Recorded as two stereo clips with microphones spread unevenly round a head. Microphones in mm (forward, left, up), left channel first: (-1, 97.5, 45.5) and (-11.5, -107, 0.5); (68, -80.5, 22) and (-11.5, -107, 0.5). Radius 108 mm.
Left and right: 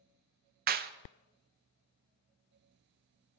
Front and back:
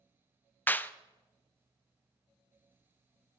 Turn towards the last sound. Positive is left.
turn(degrees=-55)